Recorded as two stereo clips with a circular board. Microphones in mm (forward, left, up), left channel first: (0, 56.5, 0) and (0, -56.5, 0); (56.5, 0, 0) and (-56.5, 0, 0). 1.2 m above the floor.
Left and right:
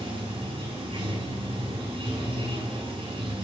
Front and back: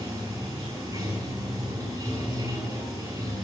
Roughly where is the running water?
Behind right.